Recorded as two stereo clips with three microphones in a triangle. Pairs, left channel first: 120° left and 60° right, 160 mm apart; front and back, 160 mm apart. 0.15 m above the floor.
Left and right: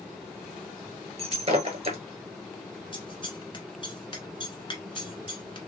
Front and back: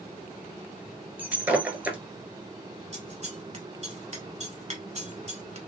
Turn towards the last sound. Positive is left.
turn(degrees=160)